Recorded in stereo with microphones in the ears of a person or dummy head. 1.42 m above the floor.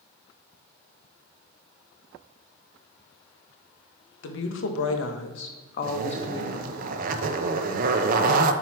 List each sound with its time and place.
4.2 s a woman speaking: 70° left (ahead or behind), 1.2 m; by 6.8 s 15° left (ahead or behind), 0.9 m
5.8 s a zipper: 50° right (ahead or behind), 0.6 m